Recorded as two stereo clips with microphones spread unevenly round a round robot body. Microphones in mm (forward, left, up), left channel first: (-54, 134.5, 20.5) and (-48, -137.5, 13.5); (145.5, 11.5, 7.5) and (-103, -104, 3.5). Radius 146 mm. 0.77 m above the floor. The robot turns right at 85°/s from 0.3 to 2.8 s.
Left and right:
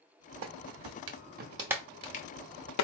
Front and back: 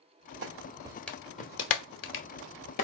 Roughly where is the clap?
Behind right.